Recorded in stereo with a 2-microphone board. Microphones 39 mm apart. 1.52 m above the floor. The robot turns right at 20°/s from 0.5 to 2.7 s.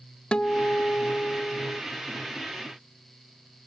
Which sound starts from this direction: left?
A guitar, at 0.3 s.